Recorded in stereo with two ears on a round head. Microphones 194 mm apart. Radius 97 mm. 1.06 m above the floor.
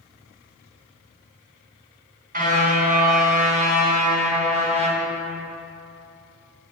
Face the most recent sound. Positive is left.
turn(degrees=-30)  # may be behind; listen again after turning